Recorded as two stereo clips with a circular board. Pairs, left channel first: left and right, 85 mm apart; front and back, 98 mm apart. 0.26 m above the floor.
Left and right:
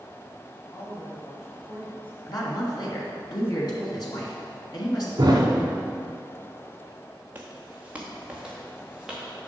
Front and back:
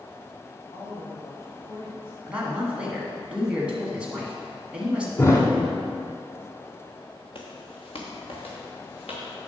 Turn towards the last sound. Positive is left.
turn(degrees=-5)